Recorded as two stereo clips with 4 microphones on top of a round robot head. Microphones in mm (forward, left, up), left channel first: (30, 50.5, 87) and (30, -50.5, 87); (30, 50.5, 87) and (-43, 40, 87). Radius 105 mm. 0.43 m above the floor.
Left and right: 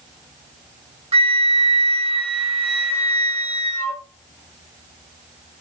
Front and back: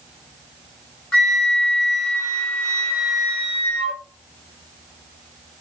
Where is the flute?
65° right, 1.0 m.